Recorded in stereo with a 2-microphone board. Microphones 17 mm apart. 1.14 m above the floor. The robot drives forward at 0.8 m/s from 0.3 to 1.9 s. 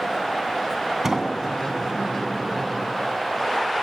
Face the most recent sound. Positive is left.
turn(degrees=-30)  # may be behind; listen again after turning